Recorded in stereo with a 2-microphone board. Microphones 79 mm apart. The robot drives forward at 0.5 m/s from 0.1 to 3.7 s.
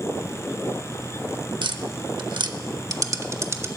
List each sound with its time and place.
1.6 s tapping: 70° right (ahead or behind), 0.6 m; by 3.7 s 35° right (ahead or behind), 1.0 m